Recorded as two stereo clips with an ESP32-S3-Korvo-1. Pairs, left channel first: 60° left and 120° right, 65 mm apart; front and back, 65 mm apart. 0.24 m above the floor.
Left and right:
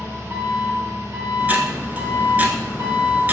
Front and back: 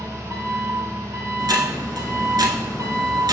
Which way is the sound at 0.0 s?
155° right.